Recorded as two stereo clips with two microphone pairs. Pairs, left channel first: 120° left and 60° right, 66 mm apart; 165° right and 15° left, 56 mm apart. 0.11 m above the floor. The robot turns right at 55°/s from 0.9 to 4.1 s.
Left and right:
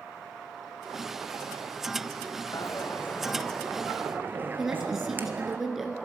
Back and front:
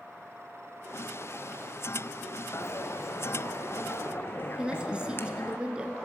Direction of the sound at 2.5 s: 155° left.